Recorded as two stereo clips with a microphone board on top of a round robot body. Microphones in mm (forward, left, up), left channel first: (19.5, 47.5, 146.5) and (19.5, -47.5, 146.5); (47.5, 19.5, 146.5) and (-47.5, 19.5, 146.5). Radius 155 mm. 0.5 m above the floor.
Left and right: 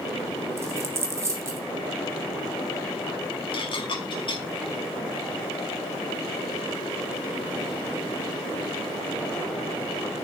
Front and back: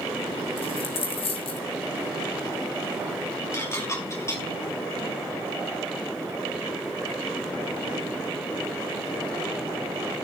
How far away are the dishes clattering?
About 4.5 m.